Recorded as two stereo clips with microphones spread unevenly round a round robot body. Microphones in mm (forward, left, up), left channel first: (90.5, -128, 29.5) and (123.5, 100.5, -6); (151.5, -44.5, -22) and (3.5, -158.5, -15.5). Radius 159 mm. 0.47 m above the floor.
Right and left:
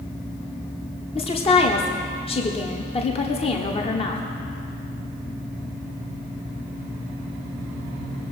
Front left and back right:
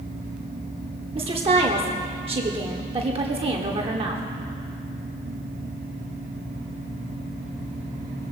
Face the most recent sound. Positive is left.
turn(degrees=-155)